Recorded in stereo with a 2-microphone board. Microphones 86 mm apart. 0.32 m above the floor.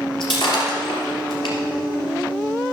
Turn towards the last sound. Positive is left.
turn(degrees=65)  # may be behind; listen again after turning